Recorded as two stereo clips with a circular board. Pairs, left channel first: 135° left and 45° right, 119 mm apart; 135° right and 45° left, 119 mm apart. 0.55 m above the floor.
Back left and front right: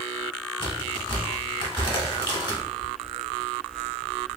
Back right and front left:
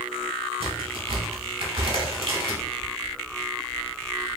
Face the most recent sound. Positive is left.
turn(degrees=85)